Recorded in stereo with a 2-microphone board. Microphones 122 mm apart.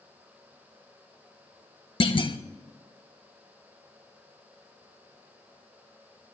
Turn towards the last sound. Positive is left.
turn(degrees=45)  # may be behind; listen again after turning